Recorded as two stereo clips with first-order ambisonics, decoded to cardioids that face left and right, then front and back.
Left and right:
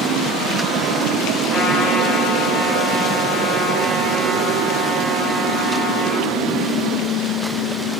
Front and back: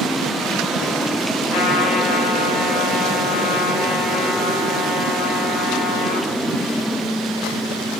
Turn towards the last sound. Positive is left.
turn(degrees=15)